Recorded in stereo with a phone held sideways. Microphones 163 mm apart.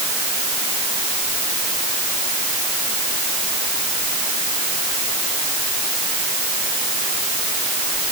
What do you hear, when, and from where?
Only background noise.